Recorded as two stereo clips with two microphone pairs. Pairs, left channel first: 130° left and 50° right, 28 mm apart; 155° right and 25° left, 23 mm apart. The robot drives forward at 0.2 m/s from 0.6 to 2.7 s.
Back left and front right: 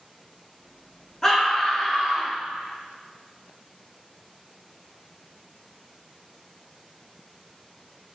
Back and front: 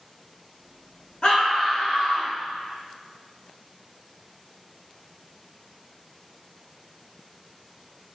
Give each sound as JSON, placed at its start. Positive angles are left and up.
{"t": 1.2, "sound": "a scream", "azimuth_deg": -160, "distance_m": 0.8}